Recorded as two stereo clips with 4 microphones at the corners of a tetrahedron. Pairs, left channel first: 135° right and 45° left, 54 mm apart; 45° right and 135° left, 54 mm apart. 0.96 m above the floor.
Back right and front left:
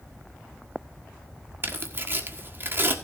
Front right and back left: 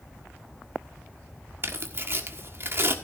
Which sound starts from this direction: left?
Tearing paper, at 1.6 s.